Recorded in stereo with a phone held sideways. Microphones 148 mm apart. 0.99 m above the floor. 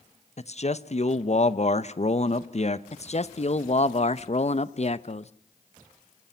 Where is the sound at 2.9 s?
45° left (ahead or behind), 0.8 m.